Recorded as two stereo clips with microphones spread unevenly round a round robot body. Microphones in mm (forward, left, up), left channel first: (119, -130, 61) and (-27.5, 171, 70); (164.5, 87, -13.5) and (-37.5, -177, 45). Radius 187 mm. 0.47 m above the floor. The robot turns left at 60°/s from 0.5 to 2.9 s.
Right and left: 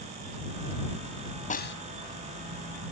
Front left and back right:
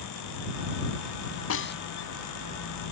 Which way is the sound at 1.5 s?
5° left.